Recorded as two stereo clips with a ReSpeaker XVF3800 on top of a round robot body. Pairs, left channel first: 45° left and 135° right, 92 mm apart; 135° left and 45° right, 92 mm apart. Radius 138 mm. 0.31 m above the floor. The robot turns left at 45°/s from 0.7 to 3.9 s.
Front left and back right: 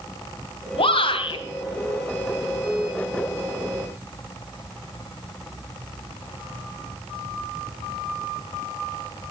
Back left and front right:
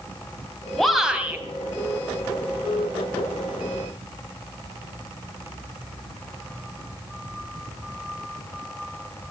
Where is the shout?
50° left, 3 m; by 1.4 s 20° left, 3 m.